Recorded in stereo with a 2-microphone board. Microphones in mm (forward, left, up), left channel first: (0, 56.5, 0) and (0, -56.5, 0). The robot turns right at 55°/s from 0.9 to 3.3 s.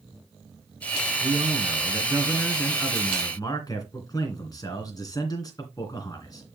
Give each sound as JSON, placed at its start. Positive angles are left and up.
{"t": 1.2, "sound": "a man speaking", "azimuth_deg": -75, "distance_m": 2.5}